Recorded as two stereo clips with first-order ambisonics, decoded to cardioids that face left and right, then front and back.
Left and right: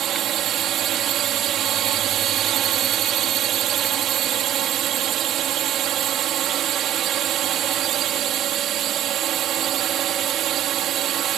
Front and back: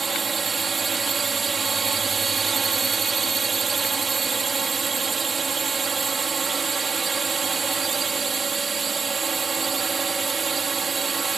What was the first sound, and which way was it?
A drone, 115° right.